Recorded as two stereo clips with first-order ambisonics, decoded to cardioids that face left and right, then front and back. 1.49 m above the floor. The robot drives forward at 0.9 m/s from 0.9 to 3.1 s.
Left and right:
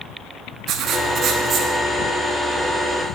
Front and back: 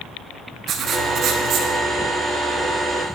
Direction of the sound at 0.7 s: 130° right.